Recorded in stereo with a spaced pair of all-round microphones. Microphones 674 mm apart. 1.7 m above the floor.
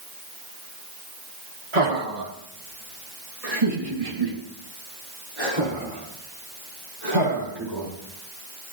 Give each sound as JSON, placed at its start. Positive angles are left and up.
{"t": 1.7, "sound": "laughter", "side_deg": -80, "distance_m": 2.5}